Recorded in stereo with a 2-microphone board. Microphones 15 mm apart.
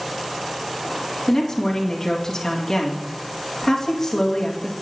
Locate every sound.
1.3 s a woman speaking: 35° left (ahead or behind), 2.5 m